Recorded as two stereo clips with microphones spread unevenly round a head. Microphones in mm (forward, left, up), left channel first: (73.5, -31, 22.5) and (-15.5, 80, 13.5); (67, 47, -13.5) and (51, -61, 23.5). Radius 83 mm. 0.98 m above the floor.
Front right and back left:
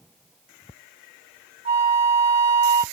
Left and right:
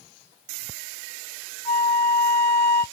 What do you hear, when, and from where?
1.6 s a flute: straight behind, 0.6 m